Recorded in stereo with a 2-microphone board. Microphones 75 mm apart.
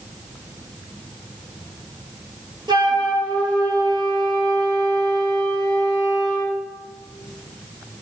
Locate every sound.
2.7 s a flute: 75° right (ahead or behind), 5.5 m